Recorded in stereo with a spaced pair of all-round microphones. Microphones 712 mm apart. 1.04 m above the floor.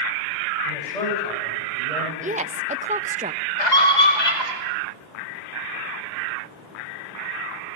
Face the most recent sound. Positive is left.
turn(degrees=75)  # may be behind; listen again after turning